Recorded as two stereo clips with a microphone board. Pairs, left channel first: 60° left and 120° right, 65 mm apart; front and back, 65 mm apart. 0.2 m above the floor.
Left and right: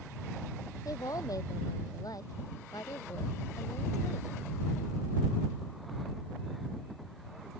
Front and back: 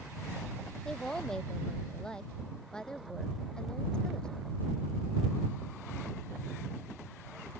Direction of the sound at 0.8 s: 80° left.